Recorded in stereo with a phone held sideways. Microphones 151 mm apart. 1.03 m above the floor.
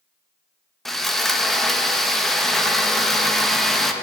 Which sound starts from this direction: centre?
Sawing, at 0.8 s.